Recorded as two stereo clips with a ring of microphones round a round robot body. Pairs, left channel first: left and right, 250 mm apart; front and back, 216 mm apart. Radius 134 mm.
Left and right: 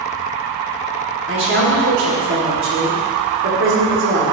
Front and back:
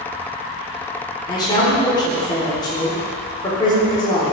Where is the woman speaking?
70° right, 2 m.